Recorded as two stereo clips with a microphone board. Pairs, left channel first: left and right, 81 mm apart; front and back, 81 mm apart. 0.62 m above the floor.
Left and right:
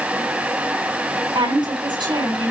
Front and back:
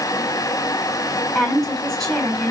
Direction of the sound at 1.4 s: 85° right.